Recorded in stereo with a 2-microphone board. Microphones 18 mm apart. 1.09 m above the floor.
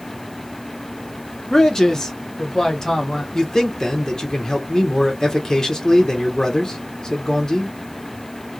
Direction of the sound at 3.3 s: 25° left (ahead or behind).